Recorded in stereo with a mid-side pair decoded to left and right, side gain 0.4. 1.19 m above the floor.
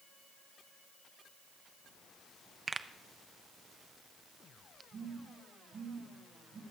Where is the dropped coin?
No dropped coin in this recording.